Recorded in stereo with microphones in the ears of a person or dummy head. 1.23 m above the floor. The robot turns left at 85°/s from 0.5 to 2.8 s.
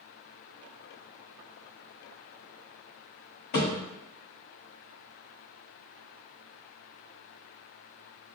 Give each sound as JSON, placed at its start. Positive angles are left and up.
{"t": 3.5, "sound": "a thud", "side_deg": 50, "distance_m": 1.6}